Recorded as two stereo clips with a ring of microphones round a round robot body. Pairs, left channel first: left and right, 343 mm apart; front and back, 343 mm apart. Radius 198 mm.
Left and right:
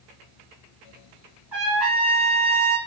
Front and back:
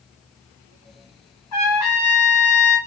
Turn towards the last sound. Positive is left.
turn(degrees=-5)